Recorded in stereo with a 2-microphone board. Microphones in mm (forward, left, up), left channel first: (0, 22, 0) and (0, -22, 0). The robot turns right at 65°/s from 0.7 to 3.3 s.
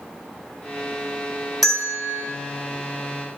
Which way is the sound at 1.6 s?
5° left.